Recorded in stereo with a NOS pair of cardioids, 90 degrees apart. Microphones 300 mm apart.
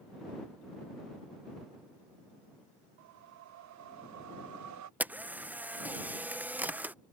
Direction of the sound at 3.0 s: 70° right.